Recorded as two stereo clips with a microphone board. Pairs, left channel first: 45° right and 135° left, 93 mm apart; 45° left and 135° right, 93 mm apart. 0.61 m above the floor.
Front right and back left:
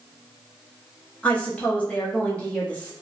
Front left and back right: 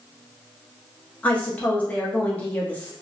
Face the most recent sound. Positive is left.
turn(degrees=0)